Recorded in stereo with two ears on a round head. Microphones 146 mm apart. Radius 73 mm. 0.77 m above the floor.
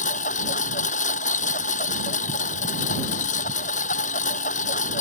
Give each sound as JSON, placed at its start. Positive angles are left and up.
{"t": 0.0, "sound": "a lawn mower", "side_deg": 50}